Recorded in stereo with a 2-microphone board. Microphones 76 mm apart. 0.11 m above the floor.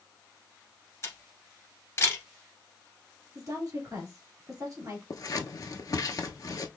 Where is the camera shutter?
35° left (ahead or behind), 1.6 m.